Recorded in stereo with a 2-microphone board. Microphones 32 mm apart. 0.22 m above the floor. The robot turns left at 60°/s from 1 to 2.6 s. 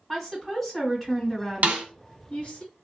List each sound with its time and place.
0.1 s a woman speaking: 175° left, 1.9 m; by 2.6 s 80° left, 1.9 m
1.6 s a snare drum: 55° right (ahead or behind), 0.7 m; by 1.9 s 50° right (ahead or behind), 0.7 m